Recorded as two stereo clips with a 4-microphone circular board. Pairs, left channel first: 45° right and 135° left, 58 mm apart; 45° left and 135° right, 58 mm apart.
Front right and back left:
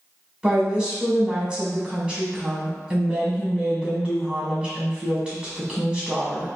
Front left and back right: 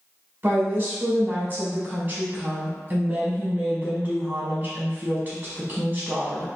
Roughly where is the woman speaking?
Behind.